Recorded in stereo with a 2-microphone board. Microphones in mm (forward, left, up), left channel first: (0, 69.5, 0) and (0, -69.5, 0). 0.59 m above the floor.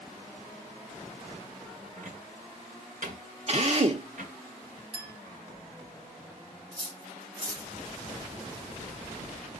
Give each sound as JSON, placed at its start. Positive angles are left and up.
{"t": 2.0, "sound": "a cupboard door", "side_deg": -70, "distance_m": 2.0}
{"t": 3.5, "sound": "a drill", "side_deg": -50, "distance_m": 0.9}
{"t": 4.9, "sound": "a clink", "side_deg": -35, "distance_m": 1.5}
{"t": 6.7, "sound": "cutlery clinking", "side_deg": -40, "distance_m": 2.0}